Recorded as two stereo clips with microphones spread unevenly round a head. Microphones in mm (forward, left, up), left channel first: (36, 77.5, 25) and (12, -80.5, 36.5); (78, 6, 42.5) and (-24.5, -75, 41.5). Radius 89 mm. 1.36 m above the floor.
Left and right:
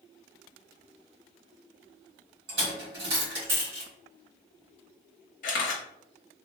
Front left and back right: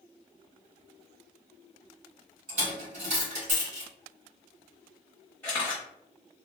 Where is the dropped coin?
115° right, 2.0 m.